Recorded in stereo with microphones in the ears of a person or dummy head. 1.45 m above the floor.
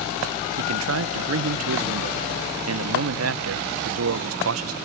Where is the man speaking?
90° right.